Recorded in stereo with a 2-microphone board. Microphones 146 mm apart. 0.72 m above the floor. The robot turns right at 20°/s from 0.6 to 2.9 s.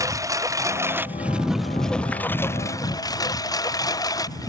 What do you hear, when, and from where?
0.0 s a lawn mower: 20° right (ahead or behind); by 4.5 s 25° left (ahead or behind)